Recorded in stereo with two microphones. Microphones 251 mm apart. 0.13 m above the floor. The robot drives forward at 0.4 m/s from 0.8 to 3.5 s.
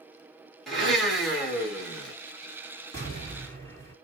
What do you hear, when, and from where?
0.7 s a blender: centre (ahead or behind), 1.9 m
2.9 s an explosion: 10° left (ahead or behind), 2 m